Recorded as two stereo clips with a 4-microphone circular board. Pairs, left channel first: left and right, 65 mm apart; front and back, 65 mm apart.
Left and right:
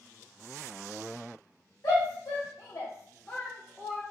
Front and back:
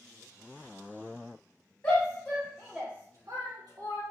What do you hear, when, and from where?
1.8 s a shout: 55° left, 1.1 m; by 4.0 s 170° right, 1.1 m